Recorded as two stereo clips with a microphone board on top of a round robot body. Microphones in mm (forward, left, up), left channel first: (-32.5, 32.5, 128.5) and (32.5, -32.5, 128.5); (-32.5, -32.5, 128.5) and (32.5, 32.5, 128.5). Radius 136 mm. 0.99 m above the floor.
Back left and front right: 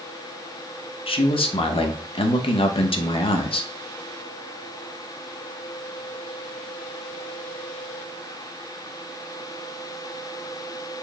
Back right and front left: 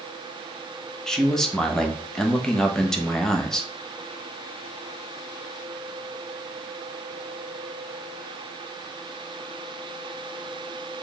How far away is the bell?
I don't hear a bell.